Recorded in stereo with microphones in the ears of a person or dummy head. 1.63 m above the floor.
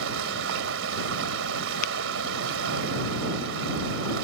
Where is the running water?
80° right.